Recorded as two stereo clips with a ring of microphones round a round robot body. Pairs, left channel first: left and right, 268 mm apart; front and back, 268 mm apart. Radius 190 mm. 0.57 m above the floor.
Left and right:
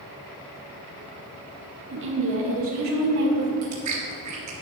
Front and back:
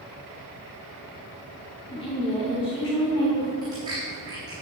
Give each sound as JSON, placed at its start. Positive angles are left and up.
{"t": 1.9, "sound": "a woman speaking", "azimuth_deg": -65, "distance_m": 1.6}
{"t": 3.6, "sound": "chewing", "azimuth_deg": -100, "distance_m": 3.5}